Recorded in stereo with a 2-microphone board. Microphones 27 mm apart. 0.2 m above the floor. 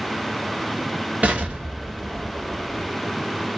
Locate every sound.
1.2 s an explosion: 60° right (ahead or behind), 1.2 m